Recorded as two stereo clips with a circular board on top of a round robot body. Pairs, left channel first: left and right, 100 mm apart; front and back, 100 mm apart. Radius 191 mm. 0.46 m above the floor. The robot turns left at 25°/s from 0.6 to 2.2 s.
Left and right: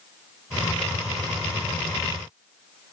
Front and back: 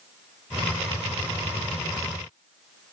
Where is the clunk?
I don't hear a clunk.